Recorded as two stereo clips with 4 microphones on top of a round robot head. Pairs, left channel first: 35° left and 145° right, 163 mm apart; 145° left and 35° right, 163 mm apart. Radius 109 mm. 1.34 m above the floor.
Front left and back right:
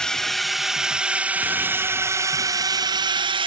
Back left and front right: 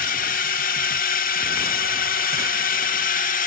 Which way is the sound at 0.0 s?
120° left.